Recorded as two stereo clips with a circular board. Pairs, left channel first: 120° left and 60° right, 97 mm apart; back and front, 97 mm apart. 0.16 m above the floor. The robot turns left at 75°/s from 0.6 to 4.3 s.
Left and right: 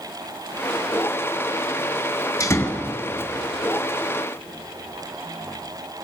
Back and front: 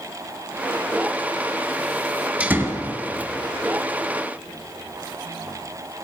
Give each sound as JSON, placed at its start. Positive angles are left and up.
{"t": 2.4, "sound": "a door slam", "azimuth_deg": 75, "distance_m": 2.0}